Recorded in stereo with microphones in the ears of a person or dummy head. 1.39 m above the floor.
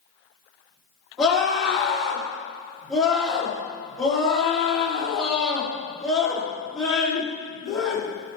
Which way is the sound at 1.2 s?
Centre (ahead or behind).